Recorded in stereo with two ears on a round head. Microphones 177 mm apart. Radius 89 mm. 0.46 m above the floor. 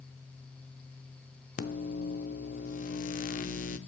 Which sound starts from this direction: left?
A microwave, at 1.6 s.